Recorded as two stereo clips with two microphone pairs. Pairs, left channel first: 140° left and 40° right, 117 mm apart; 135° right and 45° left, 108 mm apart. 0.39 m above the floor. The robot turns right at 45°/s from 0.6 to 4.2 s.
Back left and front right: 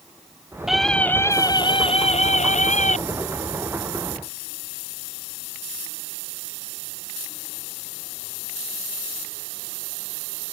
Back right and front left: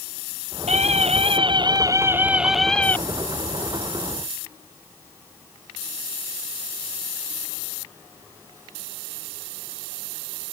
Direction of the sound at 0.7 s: 50° left.